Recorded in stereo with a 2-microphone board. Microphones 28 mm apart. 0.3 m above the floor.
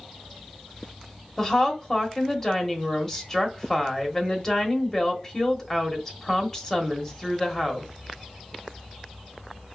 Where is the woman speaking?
15° left (ahead or behind), 1.1 m.